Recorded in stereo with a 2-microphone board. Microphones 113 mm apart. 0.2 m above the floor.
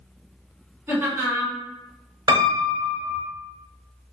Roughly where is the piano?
Right.